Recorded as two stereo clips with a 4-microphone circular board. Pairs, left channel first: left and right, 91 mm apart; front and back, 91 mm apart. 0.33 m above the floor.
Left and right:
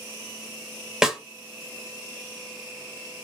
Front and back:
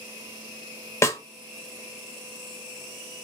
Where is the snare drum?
10° right, 0.6 m.